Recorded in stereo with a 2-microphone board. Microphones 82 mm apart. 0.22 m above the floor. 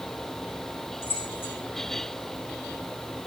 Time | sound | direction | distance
1.0 | keys jangling | 30° left (ahead or behind) | 7 m